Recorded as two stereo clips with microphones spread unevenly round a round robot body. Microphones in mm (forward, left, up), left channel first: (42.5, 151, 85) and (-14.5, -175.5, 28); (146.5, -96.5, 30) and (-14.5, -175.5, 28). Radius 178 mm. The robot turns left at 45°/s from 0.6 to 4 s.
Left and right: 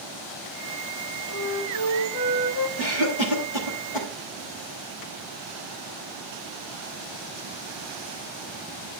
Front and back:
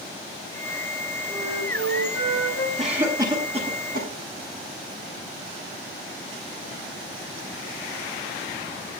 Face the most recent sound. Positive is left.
turn(degrees=85)